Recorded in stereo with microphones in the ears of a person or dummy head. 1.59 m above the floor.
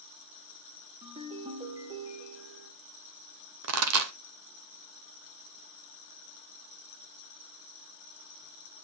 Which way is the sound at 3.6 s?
80° right.